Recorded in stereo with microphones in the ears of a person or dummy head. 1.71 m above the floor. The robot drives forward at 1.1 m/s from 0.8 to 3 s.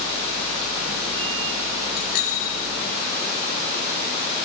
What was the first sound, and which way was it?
A bicycle bell, 55° left (ahead or behind).